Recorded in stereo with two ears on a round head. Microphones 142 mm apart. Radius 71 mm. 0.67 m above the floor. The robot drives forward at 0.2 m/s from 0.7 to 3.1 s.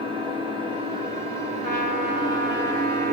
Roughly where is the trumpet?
Right.